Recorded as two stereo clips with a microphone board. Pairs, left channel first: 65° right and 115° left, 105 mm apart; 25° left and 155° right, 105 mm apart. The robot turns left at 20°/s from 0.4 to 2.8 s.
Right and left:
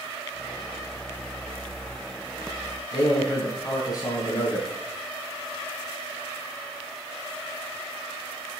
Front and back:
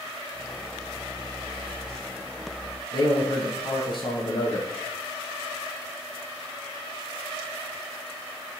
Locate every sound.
2.9 s a man speaking: 15° right, 4 m